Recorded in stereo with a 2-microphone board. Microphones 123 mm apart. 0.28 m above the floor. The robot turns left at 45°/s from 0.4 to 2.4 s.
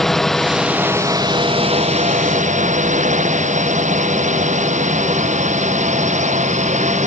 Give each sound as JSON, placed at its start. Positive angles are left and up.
{"t": 0.0, "sound": "a drone", "side_deg": 0}